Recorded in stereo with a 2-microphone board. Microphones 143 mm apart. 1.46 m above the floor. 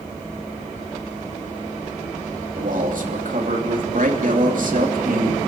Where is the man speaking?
70° right (ahead or behind), 3 m.